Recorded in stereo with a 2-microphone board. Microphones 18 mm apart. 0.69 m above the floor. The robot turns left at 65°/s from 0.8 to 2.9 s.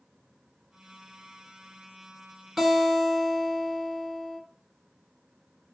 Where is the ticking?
No ticking in this recording.